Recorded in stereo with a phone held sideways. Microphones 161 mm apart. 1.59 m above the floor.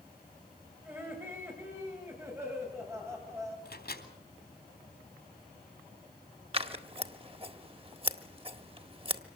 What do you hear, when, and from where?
0.8 s laughter: 15° right (ahead or behind), 7 m
3.6 s a microwave: 80° left, 3.5 m
6.5 s scissors: 35° right (ahead or behind), 1.6 m